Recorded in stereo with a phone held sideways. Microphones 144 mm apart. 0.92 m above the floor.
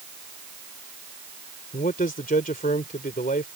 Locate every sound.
1.7 s a man speaking: 75° left (ahead or behind)